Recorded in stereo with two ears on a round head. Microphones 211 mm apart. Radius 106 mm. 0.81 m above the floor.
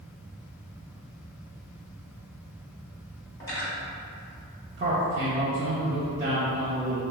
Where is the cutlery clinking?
15° left (ahead or behind), 1.8 m.